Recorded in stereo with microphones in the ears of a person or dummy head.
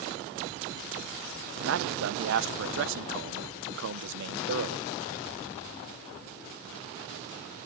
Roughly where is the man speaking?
Right.